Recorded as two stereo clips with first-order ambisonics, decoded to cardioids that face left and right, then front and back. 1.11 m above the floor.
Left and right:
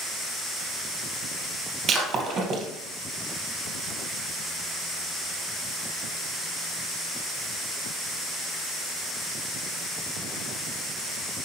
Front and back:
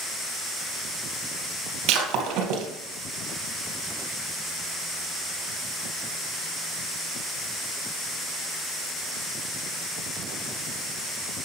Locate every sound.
1.9 s breaking glass: 150° right, 2.5 m